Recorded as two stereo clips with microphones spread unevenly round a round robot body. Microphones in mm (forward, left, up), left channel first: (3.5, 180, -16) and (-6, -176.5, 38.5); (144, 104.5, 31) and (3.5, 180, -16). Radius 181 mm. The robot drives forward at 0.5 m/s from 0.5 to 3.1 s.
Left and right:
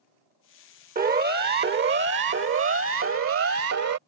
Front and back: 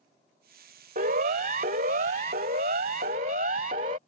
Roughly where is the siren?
Behind.